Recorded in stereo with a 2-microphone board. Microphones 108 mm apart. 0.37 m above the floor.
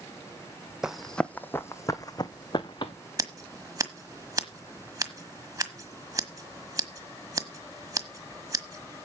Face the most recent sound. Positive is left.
turn(degrees=-35)  # may be behind; listen again after turning